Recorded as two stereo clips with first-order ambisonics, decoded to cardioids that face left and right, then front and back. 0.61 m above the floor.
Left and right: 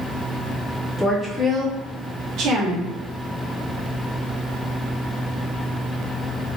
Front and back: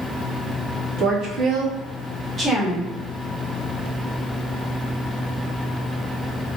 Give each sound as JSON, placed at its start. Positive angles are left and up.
{"t": 1.0, "sound": "a woman speaking", "azimuth_deg": 165, "distance_m": 0.8}